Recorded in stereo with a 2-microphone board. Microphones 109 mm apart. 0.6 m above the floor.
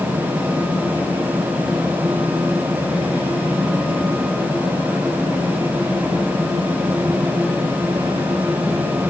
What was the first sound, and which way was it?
Only background noise.